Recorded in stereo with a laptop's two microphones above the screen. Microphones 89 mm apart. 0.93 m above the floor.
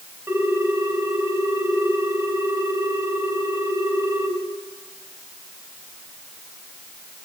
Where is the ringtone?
30° right (ahead or behind), 3.5 m.